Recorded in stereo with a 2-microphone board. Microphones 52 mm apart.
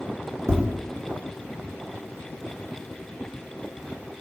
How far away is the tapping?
About 0.8 m.